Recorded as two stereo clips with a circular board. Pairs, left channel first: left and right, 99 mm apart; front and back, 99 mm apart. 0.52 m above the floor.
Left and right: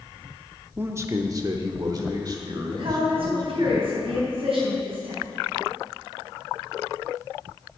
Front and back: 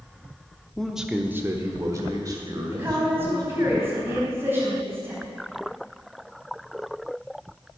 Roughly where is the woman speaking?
Behind right.